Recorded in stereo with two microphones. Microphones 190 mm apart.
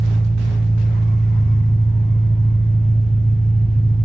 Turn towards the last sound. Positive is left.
turn(degrees=75)  # may be behind; listen again after turning